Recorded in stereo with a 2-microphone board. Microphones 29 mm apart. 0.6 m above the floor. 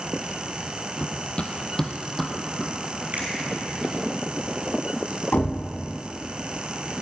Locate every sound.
1.0 s running footsteps: 55° left (ahead or behind), 1.0 m; by 4.0 s 15° right (ahead or behind), 3 m
3.1 s a finger snap: 60° right (ahead or behind), 3 m
5.3 s a thud: 85° left, 1.4 m